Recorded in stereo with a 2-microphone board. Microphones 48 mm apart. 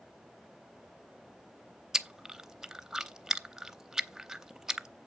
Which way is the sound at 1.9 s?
10° right (ahead or behind).